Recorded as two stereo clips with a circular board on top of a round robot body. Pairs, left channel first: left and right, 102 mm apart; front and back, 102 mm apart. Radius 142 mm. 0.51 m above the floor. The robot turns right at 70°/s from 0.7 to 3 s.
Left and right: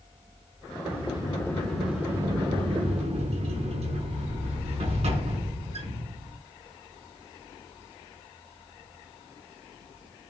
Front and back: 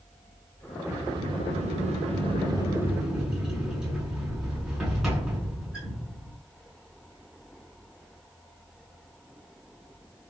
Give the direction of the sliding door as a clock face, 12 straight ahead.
8 o'clock.